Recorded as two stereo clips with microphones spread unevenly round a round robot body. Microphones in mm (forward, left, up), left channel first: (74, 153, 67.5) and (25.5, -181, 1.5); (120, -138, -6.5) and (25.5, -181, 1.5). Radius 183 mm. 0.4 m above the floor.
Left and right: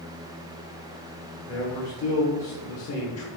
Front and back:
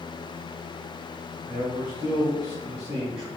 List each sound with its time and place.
1.5 s a man speaking: 130° left, 1.2 m